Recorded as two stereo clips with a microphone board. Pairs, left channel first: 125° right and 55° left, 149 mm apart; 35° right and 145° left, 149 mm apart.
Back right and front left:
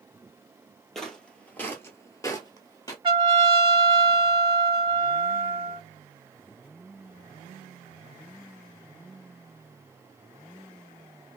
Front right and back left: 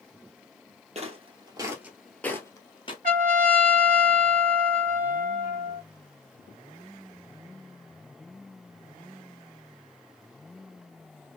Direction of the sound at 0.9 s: 150° left.